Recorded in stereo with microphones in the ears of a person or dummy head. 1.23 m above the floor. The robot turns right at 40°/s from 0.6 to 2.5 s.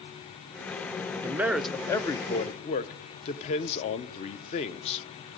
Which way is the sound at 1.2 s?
15° right.